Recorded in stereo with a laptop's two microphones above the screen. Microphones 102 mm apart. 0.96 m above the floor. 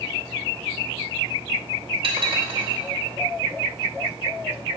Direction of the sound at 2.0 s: 65° right (ahead or behind).